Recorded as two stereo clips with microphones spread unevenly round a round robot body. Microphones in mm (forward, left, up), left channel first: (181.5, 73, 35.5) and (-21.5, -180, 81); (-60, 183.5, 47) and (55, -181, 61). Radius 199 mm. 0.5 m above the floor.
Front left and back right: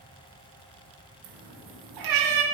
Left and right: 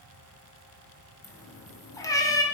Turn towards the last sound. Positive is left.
turn(degrees=-170)